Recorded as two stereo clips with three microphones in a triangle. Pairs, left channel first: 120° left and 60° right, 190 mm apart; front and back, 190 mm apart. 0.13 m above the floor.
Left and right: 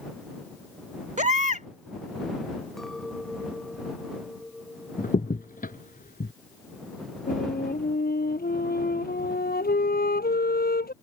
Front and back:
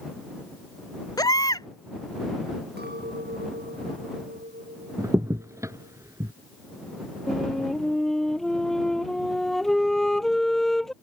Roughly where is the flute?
Left.